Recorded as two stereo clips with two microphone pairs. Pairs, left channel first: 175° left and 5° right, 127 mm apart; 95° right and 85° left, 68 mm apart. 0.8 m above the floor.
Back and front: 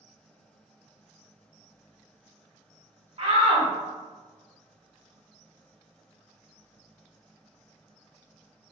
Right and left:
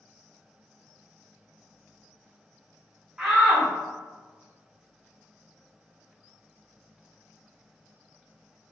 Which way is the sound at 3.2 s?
10° left.